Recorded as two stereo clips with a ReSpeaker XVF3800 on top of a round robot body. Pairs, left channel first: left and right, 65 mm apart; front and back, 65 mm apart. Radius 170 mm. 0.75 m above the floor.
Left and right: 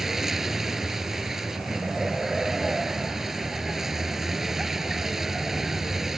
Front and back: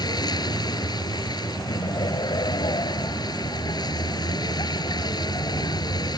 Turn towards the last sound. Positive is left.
turn(degrees=-5)